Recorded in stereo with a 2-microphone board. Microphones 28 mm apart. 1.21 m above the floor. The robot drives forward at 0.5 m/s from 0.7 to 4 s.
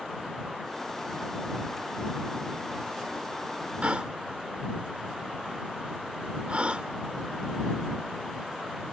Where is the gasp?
50° right (ahead or behind).